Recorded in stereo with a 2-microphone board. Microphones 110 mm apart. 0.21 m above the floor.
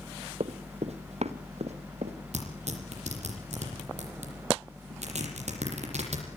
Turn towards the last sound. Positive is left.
turn(degrees=-70)  # may be behind; listen again after turning